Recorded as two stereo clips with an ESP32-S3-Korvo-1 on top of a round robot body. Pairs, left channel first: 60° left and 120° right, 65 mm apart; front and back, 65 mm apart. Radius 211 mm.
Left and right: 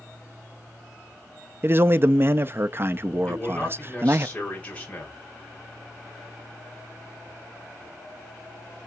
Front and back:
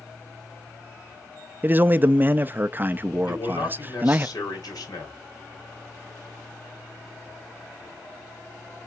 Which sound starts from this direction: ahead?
A man speaking, at 3.3 s.